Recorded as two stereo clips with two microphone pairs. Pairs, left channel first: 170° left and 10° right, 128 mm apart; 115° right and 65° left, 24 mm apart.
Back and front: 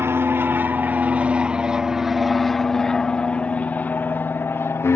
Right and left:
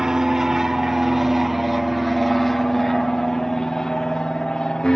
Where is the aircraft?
35° left; by 5.0 s 135° right.